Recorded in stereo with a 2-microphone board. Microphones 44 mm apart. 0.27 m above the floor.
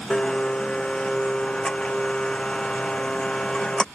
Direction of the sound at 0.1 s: 20° left (ahead or behind).